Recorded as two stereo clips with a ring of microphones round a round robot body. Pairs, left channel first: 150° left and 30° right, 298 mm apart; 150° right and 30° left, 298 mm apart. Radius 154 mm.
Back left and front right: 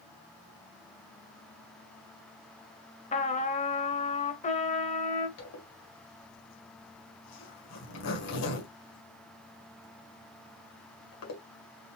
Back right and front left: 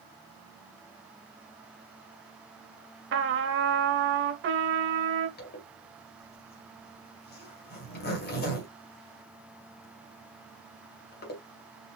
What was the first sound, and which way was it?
A trumpet, 80° left.